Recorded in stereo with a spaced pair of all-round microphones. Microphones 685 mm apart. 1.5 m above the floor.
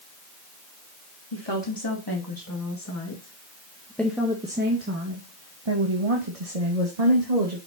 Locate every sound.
1.3 s a woman speaking: 40° left (ahead or behind), 2.5 m; by 7.6 s 70° right (ahead or behind), 2 m